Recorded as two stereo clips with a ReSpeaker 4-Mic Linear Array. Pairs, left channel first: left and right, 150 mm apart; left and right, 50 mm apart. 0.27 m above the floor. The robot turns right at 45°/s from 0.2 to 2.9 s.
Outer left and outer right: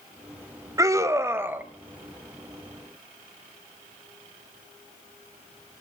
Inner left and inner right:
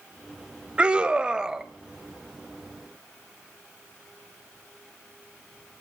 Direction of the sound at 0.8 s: 20° right (ahead or behind).